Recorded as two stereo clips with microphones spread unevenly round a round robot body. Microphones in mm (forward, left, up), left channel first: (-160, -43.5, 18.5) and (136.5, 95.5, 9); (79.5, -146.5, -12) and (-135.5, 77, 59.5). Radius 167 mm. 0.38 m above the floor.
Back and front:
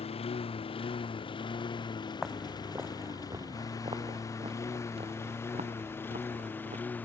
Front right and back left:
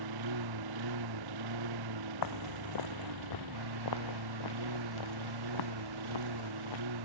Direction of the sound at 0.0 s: 135° left.